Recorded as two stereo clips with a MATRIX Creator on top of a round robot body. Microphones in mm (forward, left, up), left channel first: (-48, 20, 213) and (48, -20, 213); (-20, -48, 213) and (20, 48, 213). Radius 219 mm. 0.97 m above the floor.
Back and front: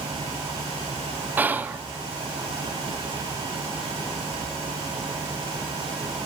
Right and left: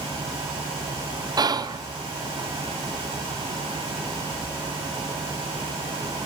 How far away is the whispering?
About 0.6 m.